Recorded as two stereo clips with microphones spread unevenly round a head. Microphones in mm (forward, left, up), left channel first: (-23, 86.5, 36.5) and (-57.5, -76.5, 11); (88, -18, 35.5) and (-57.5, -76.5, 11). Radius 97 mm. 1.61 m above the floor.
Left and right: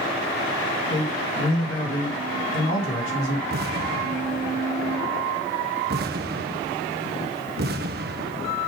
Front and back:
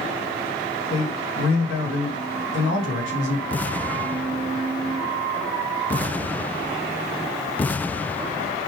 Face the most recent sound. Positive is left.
turn(degrees=-55)